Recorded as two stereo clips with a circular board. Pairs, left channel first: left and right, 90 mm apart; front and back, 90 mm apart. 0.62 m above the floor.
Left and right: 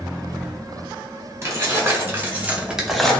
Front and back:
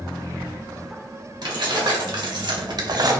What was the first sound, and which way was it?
Keys jangling, 150° right.